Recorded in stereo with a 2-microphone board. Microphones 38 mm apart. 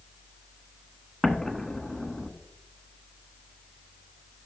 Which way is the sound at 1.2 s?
15° left (ahead or behind).